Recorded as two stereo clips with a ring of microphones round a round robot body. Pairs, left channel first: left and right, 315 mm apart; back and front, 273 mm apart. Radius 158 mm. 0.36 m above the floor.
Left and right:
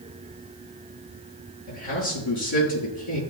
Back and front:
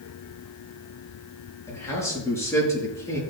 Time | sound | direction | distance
1.7 | a man speaking | 100° left | 6 m